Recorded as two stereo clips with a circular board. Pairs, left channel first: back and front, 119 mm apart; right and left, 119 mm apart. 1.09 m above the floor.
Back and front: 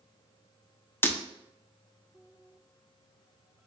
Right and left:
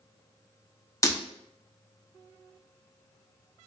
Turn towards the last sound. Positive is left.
turn(degrees=-125)